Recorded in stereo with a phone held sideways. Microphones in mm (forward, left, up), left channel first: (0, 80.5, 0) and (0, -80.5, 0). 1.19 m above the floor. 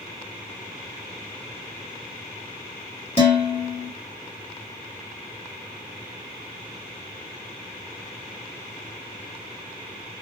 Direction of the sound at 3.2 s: 35° left (ahead or behind).